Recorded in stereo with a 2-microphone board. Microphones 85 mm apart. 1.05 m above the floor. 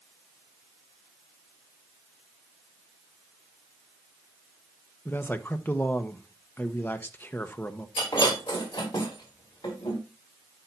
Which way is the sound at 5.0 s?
25° left (ahead or behind).